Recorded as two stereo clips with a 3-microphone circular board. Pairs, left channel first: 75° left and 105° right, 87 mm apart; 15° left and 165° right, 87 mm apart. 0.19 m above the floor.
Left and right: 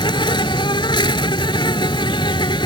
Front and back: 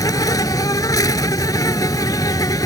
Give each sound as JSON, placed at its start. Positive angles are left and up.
{"t": 0.0, "sound": "an insect", "azimuth_deg": 60}